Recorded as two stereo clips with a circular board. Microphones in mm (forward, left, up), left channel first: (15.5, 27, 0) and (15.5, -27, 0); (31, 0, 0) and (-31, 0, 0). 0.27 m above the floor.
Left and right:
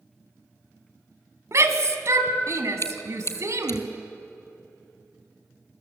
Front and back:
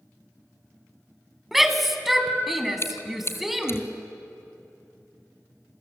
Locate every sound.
1.5 s a shout: 95° right, 2.5 m
2.8 s chewing: 50° left, 1.6 m